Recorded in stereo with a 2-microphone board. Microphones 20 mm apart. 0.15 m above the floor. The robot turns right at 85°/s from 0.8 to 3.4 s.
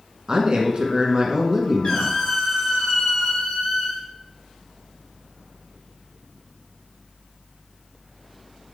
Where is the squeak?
125° left, 3.5 m; by 4.1 s 105° right, 3.5 m.